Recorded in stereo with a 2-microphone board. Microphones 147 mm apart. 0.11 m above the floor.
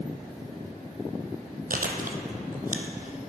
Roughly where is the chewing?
Right.